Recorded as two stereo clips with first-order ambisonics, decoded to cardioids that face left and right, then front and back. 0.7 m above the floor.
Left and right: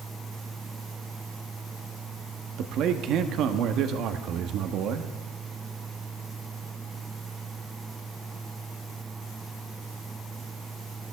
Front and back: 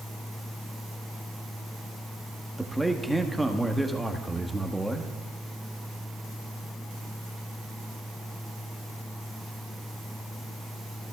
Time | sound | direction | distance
2.6 | a man speaking | 95° right | 1.0 m